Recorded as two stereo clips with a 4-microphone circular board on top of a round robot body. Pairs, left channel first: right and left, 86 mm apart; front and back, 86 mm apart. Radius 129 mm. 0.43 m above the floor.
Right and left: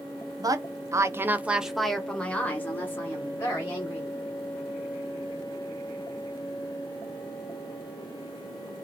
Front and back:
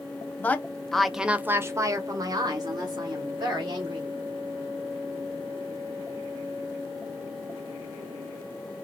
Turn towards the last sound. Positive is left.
turn(degrees=-145)